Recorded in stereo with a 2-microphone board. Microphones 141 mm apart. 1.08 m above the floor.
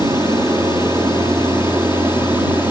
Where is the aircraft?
20° right (ahead or behind); by 2.7 s 15° right (ahead or behind).